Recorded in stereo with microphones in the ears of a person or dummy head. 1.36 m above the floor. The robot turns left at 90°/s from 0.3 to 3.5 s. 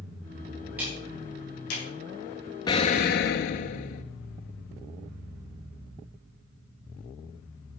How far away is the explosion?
About 0.5 m.